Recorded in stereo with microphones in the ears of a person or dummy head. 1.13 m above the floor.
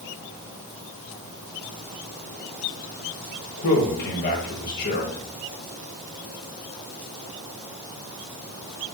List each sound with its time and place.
3.6 s a man speaking: 50° left (ahead or behind), 1.6 m